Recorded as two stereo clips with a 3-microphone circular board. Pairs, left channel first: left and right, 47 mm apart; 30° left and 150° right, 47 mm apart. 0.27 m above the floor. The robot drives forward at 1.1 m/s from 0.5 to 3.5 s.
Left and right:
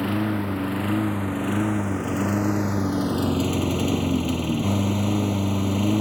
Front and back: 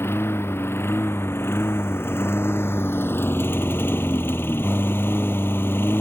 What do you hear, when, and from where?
0.0 s a lawn mower: straight ahead; by 6.0 s 5° right